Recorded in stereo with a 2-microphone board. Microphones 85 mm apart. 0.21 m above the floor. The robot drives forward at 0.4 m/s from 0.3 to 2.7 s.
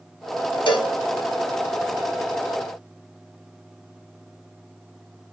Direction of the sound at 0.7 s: 75° left (ahead or behind).